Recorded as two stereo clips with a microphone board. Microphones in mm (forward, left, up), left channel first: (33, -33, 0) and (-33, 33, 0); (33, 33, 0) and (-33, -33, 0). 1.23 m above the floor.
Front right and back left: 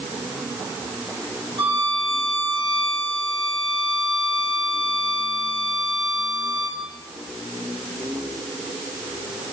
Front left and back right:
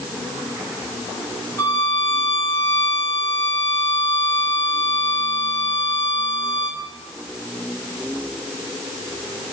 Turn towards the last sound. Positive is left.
turn(degrees=110)